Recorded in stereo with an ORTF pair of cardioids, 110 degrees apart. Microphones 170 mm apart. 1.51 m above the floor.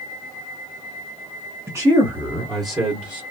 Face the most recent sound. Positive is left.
turn(degrees=-25)